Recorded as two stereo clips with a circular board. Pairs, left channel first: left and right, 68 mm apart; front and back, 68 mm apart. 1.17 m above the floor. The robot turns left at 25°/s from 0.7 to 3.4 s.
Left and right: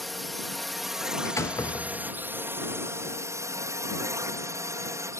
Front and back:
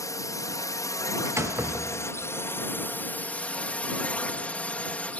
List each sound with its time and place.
0.0 s a drone: straight ahead; by 5.2 s 65° right
1.2 s a door slam: 135° left; by 2.3 s 110° left